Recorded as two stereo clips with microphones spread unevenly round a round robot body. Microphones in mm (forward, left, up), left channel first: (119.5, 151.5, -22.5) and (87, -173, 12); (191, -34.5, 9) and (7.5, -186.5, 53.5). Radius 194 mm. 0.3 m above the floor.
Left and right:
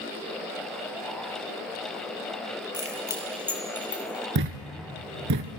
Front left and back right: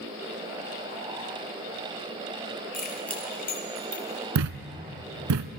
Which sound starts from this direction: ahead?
Keys jangling, at 2.7 s.